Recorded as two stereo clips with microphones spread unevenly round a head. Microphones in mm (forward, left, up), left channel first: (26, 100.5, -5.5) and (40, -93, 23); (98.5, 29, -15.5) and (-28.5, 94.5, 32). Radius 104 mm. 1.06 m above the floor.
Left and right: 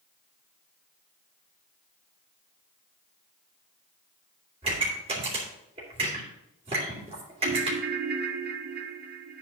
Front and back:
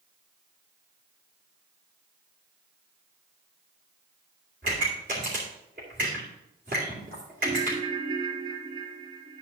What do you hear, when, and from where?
4.6 s a pop: 150° right, 2.5 m
7.4 s a ringtone: 135° right, 0.5 m